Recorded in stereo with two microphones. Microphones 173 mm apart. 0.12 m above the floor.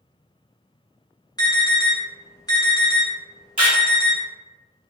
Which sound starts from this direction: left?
An alarm, at 1.4 s.